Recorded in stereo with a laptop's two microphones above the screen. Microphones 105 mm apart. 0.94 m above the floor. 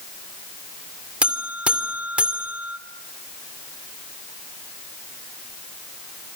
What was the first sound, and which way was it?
A buzzer, 10° right (ahead or behind).